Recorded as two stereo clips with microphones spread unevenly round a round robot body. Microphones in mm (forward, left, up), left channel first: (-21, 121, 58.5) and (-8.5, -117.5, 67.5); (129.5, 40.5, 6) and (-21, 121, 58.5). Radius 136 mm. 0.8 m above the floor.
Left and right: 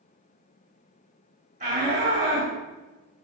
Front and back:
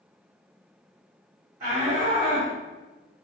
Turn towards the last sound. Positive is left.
turn(degrees=-140)